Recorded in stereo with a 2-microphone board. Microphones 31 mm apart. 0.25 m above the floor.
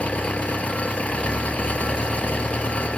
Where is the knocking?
I don't hear knocking.